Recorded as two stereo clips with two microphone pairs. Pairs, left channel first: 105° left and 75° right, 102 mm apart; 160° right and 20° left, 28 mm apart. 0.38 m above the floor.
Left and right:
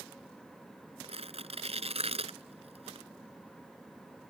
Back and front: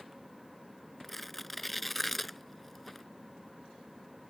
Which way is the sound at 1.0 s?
75° right.